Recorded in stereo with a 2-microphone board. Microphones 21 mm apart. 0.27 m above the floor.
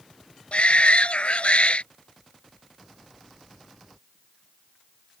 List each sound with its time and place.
0.5 s a shout: 65° left (ahead or behind)